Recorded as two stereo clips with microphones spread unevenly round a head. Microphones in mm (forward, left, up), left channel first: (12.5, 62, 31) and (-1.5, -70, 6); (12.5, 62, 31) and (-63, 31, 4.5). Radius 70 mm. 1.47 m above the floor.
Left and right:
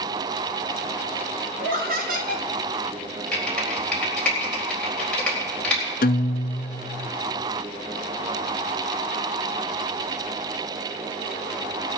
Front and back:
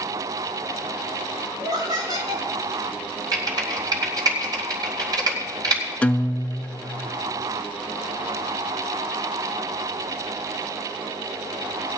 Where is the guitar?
90° left, 0.5 m.